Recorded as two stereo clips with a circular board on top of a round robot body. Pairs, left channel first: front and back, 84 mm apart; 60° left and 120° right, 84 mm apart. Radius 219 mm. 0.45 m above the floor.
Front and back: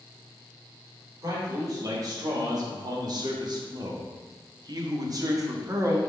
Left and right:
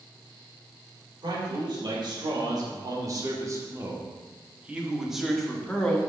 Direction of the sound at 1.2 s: 135° right.